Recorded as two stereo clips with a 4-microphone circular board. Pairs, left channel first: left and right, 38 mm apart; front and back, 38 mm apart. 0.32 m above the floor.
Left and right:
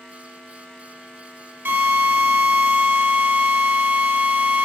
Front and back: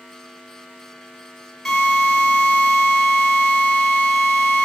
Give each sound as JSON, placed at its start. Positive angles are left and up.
{"t": 1.6, "sound": "a drill", "azimuth_deg": -80, "distance_m": 3.0}